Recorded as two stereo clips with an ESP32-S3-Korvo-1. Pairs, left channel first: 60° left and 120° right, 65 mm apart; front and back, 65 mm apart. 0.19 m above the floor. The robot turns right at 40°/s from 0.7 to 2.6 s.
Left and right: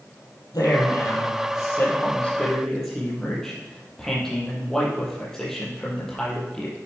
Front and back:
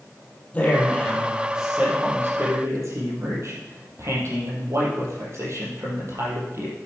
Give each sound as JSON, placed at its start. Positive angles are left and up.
{"t": 0.5, "sound": "a man speaking", "azimuth_deg": 65, "distance_m": 5.5}